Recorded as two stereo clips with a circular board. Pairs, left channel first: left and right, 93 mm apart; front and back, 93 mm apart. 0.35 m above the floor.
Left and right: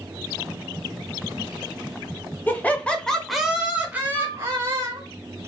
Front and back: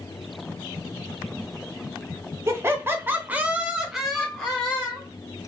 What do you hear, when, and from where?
2.5 s laughter: 145° left, 1.2 m; by 5.1 s 70° right, 1.3 m
4.1 s a flute: 70° left, 0.8 m